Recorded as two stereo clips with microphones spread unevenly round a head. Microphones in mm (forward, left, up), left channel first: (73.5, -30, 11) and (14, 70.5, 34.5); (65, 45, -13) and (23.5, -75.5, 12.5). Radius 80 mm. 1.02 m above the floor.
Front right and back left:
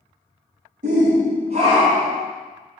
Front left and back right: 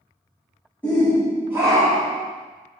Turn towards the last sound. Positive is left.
turn(degrees=-160)